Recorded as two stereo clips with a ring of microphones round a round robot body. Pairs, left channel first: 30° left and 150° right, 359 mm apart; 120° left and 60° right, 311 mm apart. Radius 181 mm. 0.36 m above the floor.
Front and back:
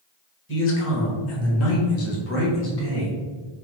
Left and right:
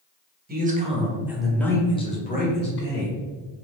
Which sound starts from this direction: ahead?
A man speaking, at 0.5 s.